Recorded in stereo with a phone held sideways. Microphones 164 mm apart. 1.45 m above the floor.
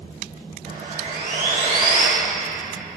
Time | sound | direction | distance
0.7 | sawing | 65° right (ahead or behind) | 3 m